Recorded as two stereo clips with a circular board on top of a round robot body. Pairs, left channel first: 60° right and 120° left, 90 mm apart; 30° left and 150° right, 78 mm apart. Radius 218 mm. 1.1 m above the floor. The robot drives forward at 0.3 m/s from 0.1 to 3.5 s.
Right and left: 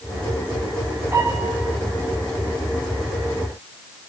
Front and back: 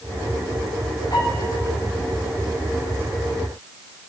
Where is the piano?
55° left, 5 m; by 1.7 s 60° left, 5 m.